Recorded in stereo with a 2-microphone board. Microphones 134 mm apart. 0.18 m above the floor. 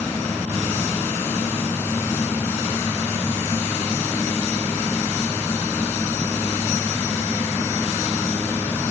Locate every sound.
Only background noise.